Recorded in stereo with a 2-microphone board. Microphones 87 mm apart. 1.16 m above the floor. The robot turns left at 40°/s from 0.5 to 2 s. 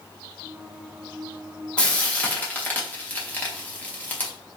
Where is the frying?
15° left (ahead or behind), 0.8 m; by 4.3 s 20° left (ahead or behind), 0.8 m.